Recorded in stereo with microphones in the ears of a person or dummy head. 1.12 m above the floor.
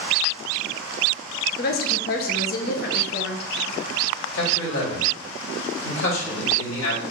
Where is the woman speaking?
50° left (ahead or behind), 0.6 m.